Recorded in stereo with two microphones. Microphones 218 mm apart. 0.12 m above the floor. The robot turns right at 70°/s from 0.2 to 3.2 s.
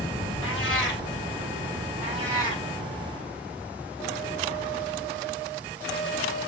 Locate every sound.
0.4 s a cat meowing: 85° left, 1.1 m; by 1.0 s 130° left, 1.1 m
2.0 s a cat meowing: 10° right, 3 m; by 2.6 s 35° left, 3 m